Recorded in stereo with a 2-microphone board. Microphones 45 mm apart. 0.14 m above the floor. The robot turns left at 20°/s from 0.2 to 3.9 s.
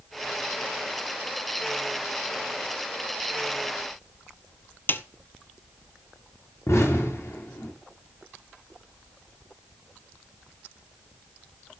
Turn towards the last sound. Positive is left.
turn(degrees=85)